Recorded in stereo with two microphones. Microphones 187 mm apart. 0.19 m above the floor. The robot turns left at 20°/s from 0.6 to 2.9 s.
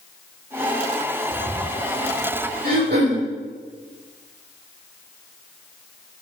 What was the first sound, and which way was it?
A bird, 75° right (ahead or behind).